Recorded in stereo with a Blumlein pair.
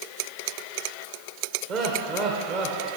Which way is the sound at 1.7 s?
35° right.